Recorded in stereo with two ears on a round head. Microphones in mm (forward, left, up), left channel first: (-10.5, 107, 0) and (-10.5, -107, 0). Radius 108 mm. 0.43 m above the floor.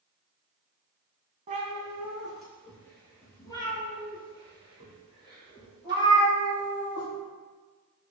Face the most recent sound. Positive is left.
turn(degrees=25)  # may be behind; listen again after turning